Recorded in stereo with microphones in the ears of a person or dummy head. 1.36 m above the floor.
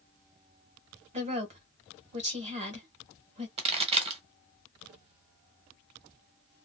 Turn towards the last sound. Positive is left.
turn(degrees=-30)  # may be behind; listen again after turning